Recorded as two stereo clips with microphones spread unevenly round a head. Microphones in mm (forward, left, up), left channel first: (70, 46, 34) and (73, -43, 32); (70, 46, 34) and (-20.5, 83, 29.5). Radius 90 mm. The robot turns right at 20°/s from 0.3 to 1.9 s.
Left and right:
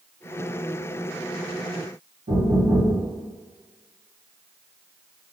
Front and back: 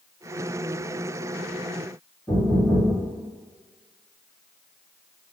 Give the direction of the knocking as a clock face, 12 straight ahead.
3 o'clock.